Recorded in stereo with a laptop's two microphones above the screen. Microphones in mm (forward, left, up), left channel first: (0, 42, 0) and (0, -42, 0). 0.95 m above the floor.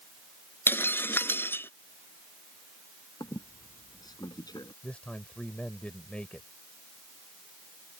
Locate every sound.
0.7 s breaking glass: 25° left (ahead or behind)
3.2 s a squeak: 50° left (ahead or behind)
4.8 s a man speaking: 10° left (ahead or behind)